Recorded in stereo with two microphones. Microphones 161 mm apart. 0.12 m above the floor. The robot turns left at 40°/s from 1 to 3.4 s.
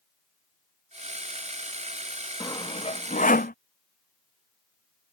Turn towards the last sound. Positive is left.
turn(degrees=60)  # may be behind; listen again after turning